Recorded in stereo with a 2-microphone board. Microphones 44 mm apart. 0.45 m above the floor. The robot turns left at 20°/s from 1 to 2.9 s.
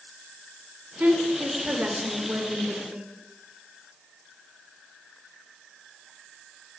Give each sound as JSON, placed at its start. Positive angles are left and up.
{"t": 1.0, "sound": "a woman speaking", "azimuth_deg": -90, "distance_m": 1.8}